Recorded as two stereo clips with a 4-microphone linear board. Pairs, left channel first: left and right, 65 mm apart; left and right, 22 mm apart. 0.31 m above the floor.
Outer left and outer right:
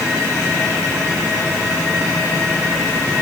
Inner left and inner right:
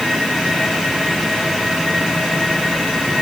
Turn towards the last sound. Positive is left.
No sound to turn to.